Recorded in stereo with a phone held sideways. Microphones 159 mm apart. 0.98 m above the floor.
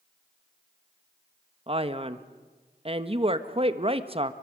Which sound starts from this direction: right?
A man speaking, at 1.7 s.